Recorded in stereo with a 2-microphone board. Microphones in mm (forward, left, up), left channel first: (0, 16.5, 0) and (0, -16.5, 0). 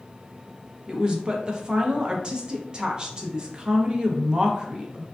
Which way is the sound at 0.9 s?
30° right (ahead or behind).